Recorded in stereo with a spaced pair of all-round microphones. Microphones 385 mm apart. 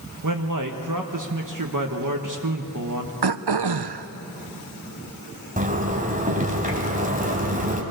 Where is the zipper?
20° right (ahead or behind), 2.5 m.